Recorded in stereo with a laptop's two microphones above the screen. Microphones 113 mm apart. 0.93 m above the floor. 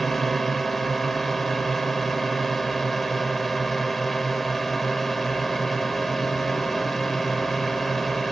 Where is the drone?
Centre (ahead or behind).